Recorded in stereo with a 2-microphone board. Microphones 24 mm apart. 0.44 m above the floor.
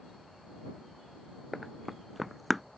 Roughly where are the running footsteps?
Centre.